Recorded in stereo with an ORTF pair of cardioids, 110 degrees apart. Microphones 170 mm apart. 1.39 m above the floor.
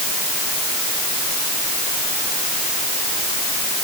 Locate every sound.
Only background noise.